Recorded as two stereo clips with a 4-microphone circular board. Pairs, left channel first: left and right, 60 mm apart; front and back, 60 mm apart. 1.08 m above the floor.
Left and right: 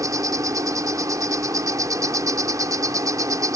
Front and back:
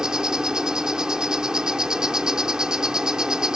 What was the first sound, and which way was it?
An insect, 100° right.